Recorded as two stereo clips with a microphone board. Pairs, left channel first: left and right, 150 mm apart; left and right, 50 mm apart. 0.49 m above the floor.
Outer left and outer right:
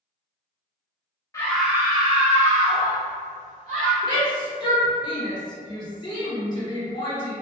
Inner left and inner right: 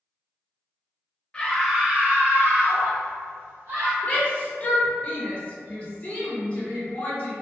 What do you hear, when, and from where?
1.3 s a scream: 20° left (ahead or behind), 0.7 m; by 3.9 s 60° right (ahead or behind), 2.5 m
4.0 s a shout: 30° left (ahead or behind), 1.2 m